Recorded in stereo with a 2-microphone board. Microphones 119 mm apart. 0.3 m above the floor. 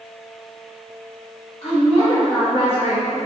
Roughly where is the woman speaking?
Left.